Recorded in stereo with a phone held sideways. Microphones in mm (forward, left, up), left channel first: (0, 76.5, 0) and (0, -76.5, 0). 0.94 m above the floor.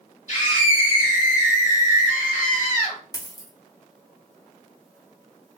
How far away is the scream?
About 1.7 m.